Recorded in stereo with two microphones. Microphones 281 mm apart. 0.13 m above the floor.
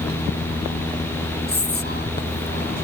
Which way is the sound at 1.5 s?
35° left (ahead or behind).